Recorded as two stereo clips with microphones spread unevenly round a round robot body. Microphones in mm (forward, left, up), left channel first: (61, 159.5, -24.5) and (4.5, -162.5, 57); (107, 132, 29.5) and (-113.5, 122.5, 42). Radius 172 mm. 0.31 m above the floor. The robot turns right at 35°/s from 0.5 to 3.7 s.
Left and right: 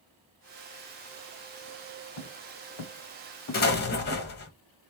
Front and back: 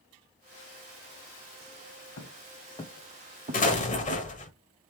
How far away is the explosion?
About 1.0 m.